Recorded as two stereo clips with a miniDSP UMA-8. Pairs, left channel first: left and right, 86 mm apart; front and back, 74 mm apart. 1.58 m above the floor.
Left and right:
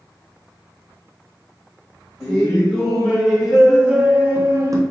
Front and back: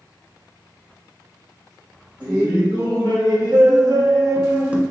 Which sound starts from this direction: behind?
Laughter, at 2.2 s.